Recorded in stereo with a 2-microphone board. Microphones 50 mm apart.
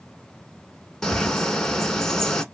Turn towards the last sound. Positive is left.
turn(degrees=15)  # may be behind; listen again after turning